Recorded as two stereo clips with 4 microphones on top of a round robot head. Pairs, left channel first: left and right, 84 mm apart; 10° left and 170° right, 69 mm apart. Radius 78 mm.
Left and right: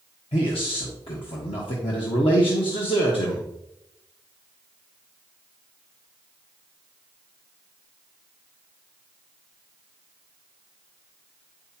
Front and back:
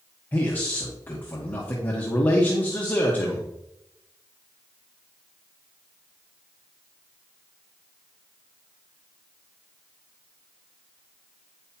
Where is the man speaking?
75° left, 1.5 m.